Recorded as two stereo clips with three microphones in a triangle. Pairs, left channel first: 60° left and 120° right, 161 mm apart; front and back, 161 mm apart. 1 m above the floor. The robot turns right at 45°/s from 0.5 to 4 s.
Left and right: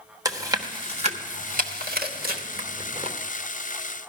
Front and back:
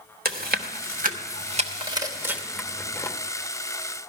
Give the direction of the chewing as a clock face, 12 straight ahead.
6 o'clock.